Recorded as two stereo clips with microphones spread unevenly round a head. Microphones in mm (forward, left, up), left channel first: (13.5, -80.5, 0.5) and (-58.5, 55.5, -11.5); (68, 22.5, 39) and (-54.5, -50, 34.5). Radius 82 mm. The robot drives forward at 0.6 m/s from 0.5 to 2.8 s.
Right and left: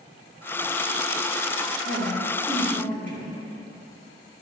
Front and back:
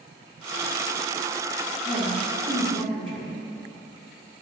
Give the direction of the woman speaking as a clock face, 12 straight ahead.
7 o'clock.